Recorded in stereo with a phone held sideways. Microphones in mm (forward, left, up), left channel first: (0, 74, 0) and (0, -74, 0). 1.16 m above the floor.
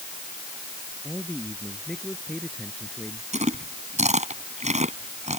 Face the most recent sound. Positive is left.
turn(degrees=-50)  # may be behind; listen again after turning